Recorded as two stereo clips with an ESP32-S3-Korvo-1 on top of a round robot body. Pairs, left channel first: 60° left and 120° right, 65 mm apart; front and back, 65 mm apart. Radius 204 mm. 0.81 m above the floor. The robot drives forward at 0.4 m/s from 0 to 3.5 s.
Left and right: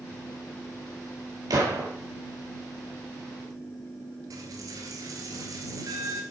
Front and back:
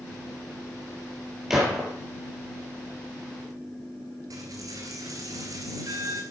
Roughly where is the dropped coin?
Behind right.